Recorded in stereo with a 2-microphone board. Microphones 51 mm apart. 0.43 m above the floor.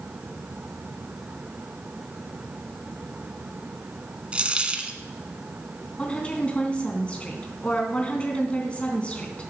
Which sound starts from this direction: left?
A woman speaking, at 6.0 s.